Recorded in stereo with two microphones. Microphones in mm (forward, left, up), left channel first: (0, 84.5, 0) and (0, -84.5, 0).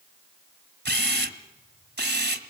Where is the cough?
I don't hear a cough.